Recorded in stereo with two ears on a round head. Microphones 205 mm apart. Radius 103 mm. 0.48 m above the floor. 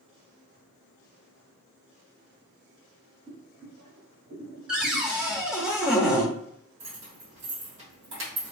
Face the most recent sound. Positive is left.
turn(degrees=-50)  # may be behind; listen again after turning